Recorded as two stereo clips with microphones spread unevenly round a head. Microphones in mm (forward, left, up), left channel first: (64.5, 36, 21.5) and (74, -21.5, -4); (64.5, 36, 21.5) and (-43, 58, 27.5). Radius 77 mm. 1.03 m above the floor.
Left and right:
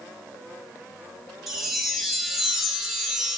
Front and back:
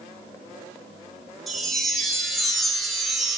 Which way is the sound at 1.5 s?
80° left.